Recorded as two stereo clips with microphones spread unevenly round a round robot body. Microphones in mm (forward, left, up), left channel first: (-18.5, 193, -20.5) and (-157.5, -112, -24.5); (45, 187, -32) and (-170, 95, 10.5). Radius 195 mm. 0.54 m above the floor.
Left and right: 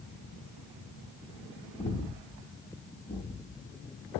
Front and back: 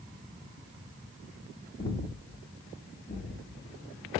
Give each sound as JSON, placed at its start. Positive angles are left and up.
{"t": 1.8, "sound": "breathing", "azimuth_deg": 5, "distance_m": 0.6}